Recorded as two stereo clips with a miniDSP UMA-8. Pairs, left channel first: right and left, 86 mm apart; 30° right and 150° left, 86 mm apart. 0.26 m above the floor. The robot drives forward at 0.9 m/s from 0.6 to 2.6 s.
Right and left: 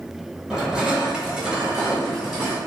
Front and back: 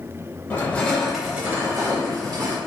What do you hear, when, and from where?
0.5 s crushing: 15° left, 0.9 m; by 2.6 s 175° left, 1.5 m